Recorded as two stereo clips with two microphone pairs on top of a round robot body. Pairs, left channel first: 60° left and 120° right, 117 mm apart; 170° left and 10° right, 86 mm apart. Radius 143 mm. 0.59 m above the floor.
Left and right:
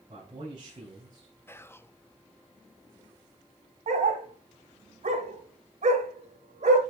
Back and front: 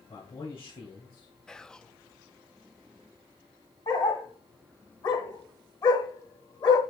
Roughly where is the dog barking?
Behind right.